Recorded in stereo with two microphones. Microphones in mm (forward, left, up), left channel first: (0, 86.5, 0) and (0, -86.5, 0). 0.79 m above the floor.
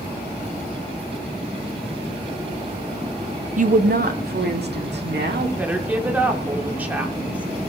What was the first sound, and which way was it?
A woman speaking, 45° right (ahead or behind).